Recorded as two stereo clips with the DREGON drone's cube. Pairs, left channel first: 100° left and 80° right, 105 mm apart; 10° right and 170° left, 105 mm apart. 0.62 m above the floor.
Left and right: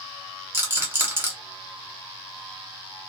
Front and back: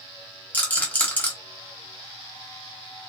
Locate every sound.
0.5 s a rattle: 60° right, 1.1 m